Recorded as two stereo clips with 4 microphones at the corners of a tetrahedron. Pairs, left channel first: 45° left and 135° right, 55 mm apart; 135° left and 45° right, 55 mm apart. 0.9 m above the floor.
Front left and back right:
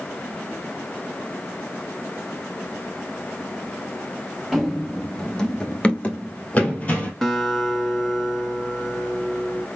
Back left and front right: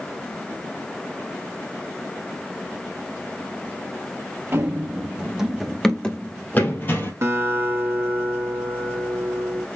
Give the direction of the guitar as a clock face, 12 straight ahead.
1 o'clock.